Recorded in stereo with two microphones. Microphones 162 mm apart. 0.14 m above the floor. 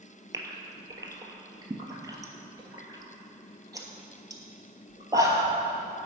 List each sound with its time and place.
0.3 s a gasp: 20° right (ahead or behind), 1.2 m